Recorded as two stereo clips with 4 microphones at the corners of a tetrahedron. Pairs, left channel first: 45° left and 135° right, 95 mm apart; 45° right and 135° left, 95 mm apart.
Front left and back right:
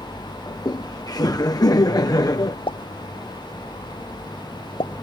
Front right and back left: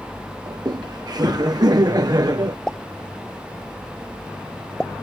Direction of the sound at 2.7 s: 35° left.